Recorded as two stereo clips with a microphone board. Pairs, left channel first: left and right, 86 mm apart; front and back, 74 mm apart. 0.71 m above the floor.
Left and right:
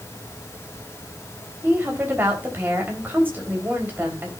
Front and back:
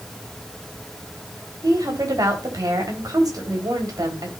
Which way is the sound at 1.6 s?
155° right.